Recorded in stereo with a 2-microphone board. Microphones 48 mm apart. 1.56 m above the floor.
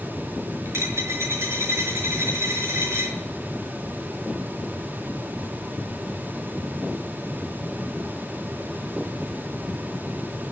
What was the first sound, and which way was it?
A dropped coin, 70° right (ahead or behind).